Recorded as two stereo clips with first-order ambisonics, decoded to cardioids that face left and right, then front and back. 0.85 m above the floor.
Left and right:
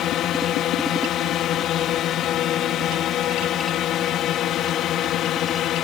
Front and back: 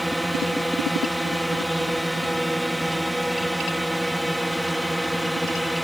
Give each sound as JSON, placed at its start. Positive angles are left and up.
{"t": 0.0, "sound": "a drone", "azimuth_deg": 95}